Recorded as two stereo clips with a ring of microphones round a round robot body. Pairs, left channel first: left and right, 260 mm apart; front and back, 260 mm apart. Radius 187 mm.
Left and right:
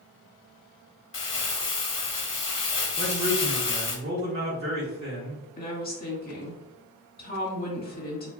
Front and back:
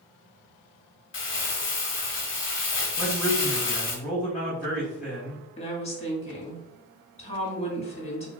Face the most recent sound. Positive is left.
turn(degrees=55)